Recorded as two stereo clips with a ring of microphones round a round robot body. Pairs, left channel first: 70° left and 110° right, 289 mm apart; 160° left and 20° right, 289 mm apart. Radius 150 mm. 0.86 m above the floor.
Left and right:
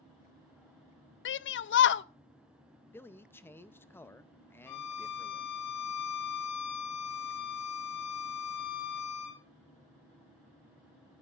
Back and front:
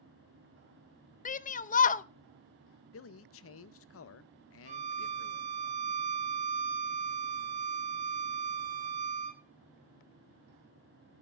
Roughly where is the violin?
Ahead left.